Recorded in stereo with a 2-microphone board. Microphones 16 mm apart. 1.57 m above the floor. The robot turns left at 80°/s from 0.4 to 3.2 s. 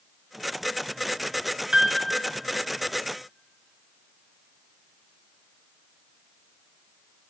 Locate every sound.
1.7 s a piano: 85° right, 1.8 m; by 2.0 s 75° right (ahead or behind), 1.8 m